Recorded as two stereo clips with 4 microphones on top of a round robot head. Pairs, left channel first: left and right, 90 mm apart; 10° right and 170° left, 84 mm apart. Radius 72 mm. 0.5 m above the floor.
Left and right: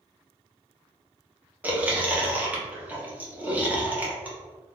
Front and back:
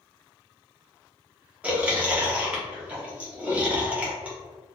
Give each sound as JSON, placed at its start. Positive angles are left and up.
{"t": 1.6, "sound": "chewing", "azimuth_deg": -135, "distance_m": 1.1}